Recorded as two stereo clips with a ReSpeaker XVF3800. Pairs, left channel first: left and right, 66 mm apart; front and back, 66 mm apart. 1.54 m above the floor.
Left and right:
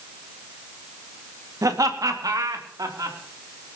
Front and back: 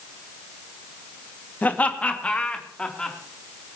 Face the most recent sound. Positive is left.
turn(degrees=-75)